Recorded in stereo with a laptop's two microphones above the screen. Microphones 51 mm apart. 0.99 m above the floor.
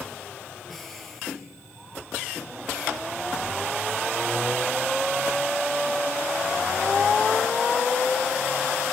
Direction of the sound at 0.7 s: 5° left (ahead or behind).